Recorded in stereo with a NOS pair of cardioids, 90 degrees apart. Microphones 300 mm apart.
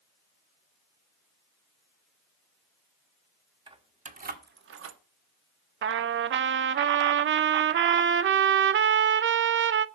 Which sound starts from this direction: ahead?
Keys jangling, at 3.7 s.